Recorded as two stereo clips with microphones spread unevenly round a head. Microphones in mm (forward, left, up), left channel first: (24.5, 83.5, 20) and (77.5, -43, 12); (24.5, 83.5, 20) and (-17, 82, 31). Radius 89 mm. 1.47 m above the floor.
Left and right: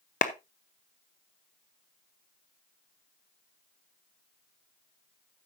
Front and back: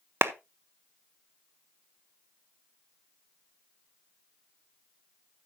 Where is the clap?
165° left, 0.7 m.